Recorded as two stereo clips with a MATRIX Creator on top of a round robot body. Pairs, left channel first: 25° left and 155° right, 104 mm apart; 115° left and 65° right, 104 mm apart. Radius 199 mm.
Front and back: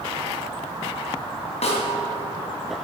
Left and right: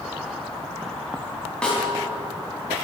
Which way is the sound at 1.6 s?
30° left.